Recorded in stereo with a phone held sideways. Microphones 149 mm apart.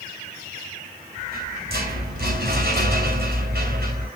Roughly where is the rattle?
Right.